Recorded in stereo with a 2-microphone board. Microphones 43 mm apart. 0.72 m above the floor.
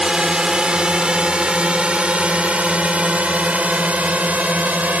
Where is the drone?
20° right (ahead or behind); by 5.0 s 40° right (ahead or behind).